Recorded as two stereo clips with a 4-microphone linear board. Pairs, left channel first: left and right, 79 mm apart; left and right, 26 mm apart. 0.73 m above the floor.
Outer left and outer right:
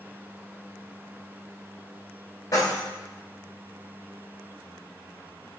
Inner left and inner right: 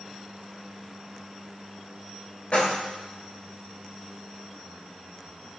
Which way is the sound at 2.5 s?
50° left (ahead or behind).